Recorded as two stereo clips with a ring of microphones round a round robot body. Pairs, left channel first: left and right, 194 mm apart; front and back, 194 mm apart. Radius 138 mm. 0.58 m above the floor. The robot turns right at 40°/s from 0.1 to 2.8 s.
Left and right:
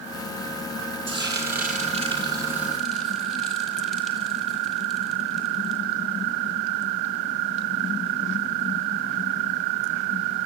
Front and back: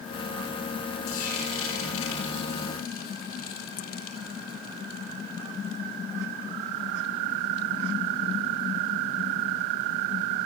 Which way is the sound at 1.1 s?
70° right.